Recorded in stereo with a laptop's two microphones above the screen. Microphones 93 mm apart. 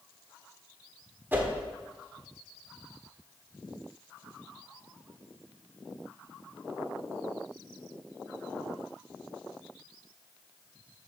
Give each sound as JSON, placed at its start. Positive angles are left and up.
{"t": 1.3, "sound": "a whoosh", "side_deg": -20, "distance_m": 1.2}